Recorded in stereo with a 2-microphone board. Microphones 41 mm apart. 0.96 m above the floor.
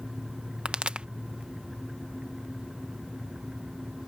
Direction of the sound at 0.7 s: 25° right (ahead or behind).